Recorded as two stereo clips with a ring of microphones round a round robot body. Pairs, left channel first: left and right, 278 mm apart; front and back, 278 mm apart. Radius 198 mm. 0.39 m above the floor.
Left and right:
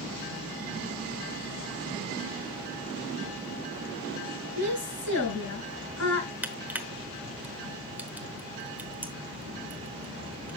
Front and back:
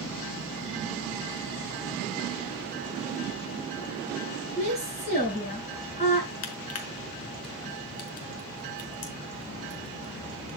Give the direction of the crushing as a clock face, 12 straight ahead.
12 o'clock.